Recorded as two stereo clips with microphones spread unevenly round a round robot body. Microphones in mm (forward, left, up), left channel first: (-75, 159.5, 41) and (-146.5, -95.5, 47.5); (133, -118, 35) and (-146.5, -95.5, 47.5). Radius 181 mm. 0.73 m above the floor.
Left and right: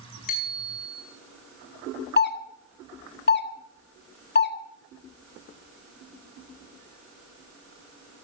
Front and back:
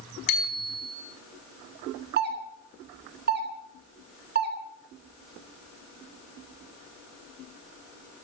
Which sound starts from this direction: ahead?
A bicycle bell, at 0.3 s.